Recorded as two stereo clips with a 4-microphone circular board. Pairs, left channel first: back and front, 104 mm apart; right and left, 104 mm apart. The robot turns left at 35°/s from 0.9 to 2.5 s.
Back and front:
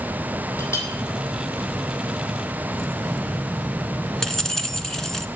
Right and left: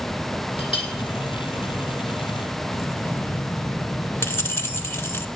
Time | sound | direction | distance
0.6 | a clink | 120° right | 3.5 m
2.7 | keys jangling | 100° right | 0.8 m